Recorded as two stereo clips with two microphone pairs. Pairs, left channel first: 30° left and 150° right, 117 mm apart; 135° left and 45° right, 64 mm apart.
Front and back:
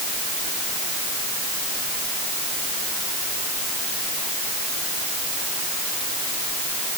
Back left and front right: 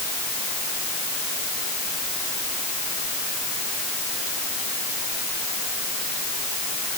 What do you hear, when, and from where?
Only background noise.